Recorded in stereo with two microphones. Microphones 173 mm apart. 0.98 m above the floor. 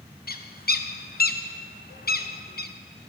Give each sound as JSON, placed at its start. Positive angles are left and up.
{"t": 0.3, "sound": "a bird", "side_deg": 65, "distance_m": 0.6}